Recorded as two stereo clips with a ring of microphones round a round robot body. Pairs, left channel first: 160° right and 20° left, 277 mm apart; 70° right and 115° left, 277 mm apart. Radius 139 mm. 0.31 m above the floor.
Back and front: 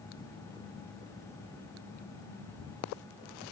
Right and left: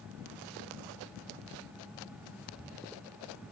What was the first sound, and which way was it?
Only background noise.